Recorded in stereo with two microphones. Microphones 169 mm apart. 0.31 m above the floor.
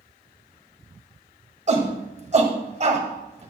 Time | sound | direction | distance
1.7 | a shout | 45° right (ahead or behind) | 1.8 m